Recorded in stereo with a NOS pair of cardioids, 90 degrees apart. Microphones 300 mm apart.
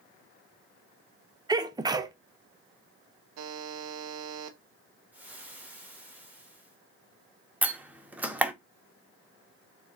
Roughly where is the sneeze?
Ahead.